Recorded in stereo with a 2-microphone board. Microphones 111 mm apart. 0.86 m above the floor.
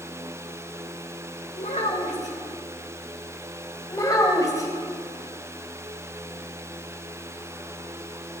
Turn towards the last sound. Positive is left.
turn(degrees=30)  # may be behind; listen again after turning